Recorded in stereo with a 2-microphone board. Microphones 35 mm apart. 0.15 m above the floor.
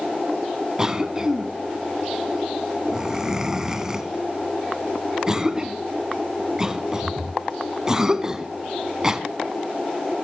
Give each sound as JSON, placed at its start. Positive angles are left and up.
{"t": 0.8, "sound": "a cough", "side_deg": -15, "distance_m": 1.1}